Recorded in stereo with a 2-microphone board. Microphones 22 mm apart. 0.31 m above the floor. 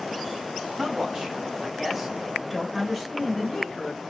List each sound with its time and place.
0.8 s a man speaking: 40° right (ahead or behind), 1.5 m; by 4.0 s 35° left (ahead or behind), 1.2 m